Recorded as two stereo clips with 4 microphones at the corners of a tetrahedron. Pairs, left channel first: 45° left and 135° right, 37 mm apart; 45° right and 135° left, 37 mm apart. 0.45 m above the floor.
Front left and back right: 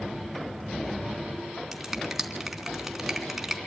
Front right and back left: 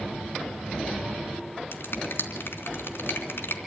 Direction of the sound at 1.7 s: 50° right.